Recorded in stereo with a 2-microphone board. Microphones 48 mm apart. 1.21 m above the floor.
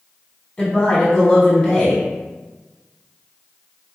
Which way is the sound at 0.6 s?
15° left (ahead or behind).